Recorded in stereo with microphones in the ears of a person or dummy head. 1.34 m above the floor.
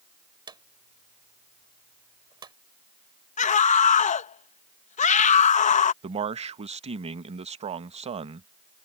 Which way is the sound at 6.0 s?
35° right (ahead or behind).